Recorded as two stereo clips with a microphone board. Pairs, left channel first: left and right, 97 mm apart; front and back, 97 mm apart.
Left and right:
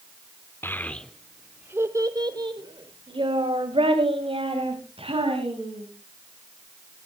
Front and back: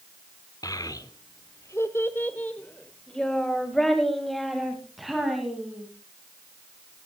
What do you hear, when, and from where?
0.6 s a child speaking: 30° left, 1.0 m; by 5.8 s 90° right, 3.5 m